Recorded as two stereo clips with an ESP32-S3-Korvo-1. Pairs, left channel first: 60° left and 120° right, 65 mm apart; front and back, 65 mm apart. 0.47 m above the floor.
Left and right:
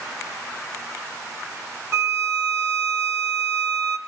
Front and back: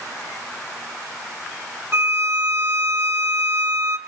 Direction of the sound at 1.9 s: 145° right.